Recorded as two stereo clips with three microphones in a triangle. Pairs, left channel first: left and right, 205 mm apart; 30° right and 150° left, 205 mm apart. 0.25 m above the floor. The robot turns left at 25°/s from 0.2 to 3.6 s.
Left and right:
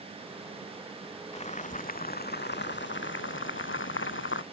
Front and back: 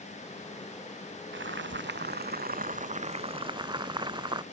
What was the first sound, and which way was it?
Boiling, 145° left.